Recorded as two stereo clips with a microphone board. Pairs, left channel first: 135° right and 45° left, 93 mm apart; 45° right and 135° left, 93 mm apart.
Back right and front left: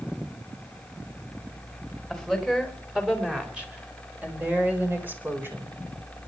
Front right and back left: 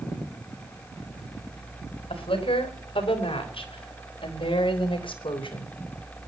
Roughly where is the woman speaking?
Ahead right.